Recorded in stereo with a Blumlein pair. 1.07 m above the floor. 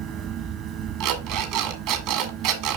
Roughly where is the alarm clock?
Ahead right.